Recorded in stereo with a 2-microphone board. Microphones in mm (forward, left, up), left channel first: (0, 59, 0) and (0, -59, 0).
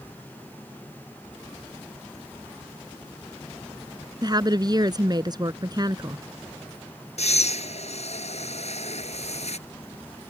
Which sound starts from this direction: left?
Breathing, at 7.2 s.